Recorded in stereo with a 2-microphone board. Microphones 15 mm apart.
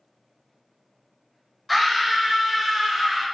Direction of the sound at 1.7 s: Centre (ahead or behind).